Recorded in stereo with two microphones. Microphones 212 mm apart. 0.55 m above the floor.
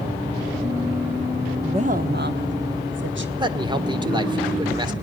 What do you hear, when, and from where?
1.6 s a woman speaking: 20° right (ahead or behind), 0.8 m; by 3.3 s 65° right (ahead or behind), 2.5 m
3.4 s a man speaking: 20° right (ahead or behind), 1.5 m